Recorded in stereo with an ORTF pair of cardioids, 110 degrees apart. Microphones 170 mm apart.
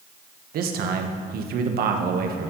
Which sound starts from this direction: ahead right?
A man speaking, at 0.5 s.